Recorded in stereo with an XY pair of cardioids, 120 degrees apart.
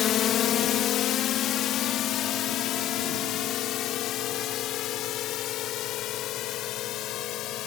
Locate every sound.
0.0 s a drone: 60° left; by 7.7 s 75° left